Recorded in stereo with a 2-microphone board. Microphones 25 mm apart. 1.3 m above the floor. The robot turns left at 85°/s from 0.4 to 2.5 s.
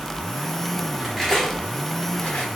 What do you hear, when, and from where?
1.0 s cutlery clinking: 10° right (ahead or behind), 3 m; by 2.5 s 65° left (ahead or behind), 3 m